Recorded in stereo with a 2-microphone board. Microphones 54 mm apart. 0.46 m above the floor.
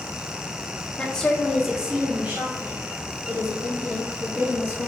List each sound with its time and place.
1.0 s a woman speaking: 20° left (ahead or behind), 0.9 m; by 4.9 s 55° right (ahead or behind), 2.5 m